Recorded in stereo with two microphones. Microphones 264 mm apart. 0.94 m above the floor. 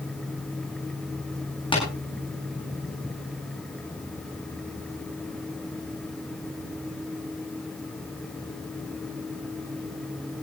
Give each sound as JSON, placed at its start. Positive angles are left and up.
{"t": 1.7, "sound": "tapping", "side_deg": 20, "distance_m": 9.5}